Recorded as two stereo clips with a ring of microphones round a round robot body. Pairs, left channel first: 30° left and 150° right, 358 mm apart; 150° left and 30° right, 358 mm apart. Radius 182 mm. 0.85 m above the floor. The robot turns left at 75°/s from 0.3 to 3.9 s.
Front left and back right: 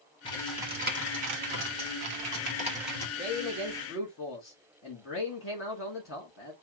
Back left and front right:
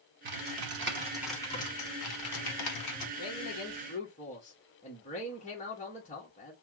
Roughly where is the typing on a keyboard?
Ahead right.